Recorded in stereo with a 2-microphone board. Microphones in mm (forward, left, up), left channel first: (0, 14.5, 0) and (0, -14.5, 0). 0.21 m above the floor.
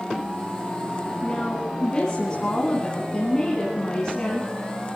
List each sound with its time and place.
1.2 s a woman speaking: 25° left (ahead or behind), 2.0 m